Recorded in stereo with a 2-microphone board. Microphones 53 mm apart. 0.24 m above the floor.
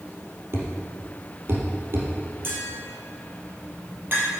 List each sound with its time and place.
0.5 s a thud: 50° right (ahead or behind), 3 m
2.4 s tapping: 40° right (ahead or behind), 5 m